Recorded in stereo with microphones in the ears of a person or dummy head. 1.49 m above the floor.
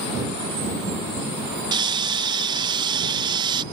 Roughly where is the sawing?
Right.